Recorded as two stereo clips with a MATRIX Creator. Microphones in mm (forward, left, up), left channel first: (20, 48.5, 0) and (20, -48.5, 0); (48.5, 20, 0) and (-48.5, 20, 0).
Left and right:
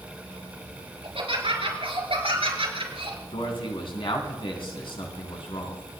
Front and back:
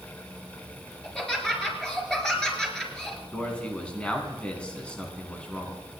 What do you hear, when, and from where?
1.0 s laughter: 85° right, 4.5 m
3.3 s a man speaking: 80° left, 3 m